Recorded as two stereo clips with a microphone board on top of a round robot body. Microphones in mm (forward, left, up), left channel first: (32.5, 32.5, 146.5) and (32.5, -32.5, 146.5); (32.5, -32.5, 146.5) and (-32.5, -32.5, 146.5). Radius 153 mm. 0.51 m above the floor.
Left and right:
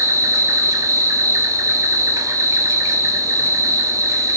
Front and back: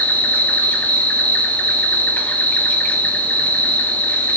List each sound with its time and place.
0.0 s an insect: 65° right, 0.9 m